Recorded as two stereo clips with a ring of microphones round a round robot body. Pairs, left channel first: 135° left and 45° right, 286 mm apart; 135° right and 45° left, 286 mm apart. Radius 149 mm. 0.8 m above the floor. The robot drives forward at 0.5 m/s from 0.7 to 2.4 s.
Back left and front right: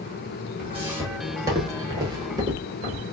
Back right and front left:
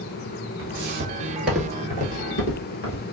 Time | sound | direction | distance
0.6 | footsteps | 40° left | 0.9 m